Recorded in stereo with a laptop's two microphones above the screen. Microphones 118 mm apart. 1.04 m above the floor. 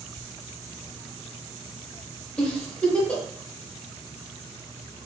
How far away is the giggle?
About 1.6 m.